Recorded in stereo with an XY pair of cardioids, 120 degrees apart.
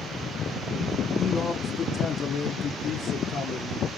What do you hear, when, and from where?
1.2 s a man speaking: 25° left, 0.9 m; by 3.9 s 65° left, 2 m